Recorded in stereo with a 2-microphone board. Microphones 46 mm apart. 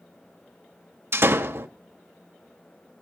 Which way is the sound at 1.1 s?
60° right (ahead or behind).